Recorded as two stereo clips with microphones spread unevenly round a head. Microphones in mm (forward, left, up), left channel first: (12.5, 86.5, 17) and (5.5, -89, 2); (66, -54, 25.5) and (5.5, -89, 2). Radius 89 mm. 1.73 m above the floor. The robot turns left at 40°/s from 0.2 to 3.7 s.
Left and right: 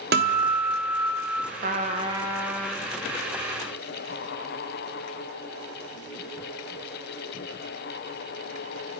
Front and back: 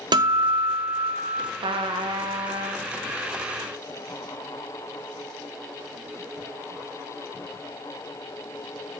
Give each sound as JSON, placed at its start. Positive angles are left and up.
{"t": 0.1, "sound": "a guitar", "azimuth_deg": -125, "distance_m": 0.6}
{"t": 1.6, "sound": "a trumpet", "azimuth_deg": -140, "distance_m": 0.6}